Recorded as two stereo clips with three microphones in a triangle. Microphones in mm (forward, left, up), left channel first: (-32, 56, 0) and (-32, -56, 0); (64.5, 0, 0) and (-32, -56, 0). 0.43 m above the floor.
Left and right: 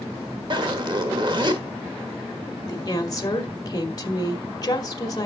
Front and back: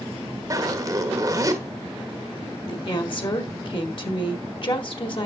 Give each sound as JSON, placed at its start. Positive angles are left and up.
{"t": 0.5, "sound": "a zipper", "azimuth_deg": -105, "distance_m": 1.4}
{"t": 2.7, "sound": "a woman speaking", "azimuth_deg": 50, "distance_m": 1.6}